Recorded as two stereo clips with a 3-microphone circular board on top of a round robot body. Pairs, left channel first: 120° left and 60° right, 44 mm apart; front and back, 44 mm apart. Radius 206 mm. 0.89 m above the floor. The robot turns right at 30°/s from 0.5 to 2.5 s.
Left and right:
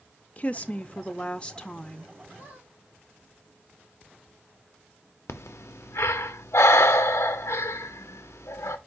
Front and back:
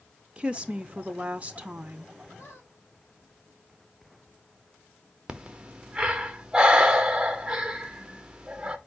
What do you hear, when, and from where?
0.4 s a woman speaking: 140° left, 0.6 m; by 2.1 s 175° right, 0.6 m
2.4 s a squeak: 30° right, 1.4 m; by 2.7 s 25° right, 1.4 m
5.3 s breathing: 110° left, 0.5 m